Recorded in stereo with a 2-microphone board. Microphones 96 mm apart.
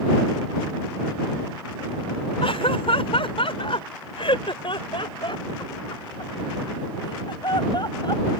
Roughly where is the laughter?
Left.